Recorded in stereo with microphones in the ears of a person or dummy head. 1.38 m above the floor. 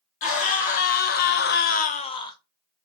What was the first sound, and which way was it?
A scream, 45° left (ahead or behind).